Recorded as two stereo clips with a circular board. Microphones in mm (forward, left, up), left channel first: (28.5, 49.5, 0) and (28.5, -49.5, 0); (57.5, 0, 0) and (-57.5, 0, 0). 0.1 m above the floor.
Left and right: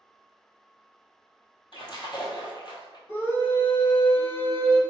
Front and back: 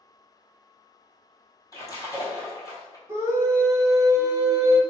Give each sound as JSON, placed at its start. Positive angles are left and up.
{"t": 1.7, "sound": "a splash", "azimuth_deg": 55, "distance_m": 1.2}
{"t": 3.1, "sound": "a scream", "azimuth_deg": 135, "distance_m": 1.7}